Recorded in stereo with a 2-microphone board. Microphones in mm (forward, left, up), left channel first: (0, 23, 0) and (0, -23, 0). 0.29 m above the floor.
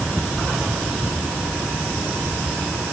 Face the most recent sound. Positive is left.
No sound to turn to.